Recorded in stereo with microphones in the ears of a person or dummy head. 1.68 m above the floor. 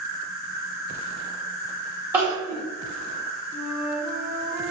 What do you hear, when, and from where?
0.0 s an insect: 50° left (ahead or behind), 0.9 m
2.1 s crying: 10° right (ahead or behind), 1.0 m
3.5 s a flute: 10° left (ahead or behind), 1.4 m